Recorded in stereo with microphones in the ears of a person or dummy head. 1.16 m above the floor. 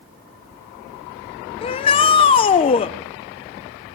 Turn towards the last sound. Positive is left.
turn(degrees=25)  # may be behind; listen again after turning